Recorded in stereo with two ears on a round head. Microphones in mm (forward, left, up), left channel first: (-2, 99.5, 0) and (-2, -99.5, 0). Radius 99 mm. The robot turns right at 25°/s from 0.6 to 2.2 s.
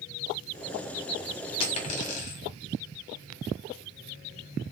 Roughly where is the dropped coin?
Left.